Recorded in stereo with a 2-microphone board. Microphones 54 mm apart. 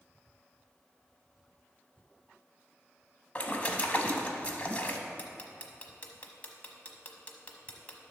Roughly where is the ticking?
Left.